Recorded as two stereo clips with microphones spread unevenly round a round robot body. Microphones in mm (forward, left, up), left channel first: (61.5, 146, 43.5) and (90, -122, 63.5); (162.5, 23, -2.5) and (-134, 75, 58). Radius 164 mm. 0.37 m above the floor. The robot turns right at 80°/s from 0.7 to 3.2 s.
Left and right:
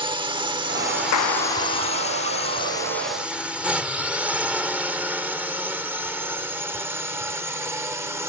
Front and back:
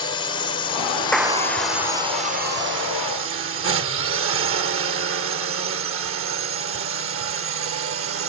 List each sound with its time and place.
0.0 s a drone: 25° right; by 8.3 s 165° right
1.1 s a clap: 75° left; by 2.0 s 145° left